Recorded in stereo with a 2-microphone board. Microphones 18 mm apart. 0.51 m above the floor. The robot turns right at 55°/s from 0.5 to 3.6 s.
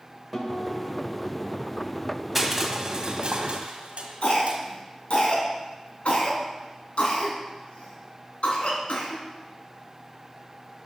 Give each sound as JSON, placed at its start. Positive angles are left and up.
{"t": 0.3, "sound": "a guitar", "azimuth_deg": 175, "distance_m": 2.5}
{"t": 2.4, "sound": "crushing", "side_deg": -10, "distance_m": 1.6}
{"t": 4.2, "sound": "a cough", "side_deg": 80, "distance_m": 4.0}